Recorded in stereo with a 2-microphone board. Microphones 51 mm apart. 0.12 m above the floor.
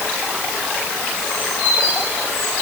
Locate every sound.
Only background noise.